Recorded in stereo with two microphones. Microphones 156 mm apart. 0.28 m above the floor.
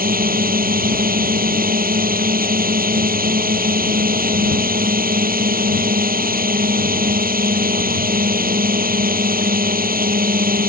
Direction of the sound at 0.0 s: 70° right (ahead or behind).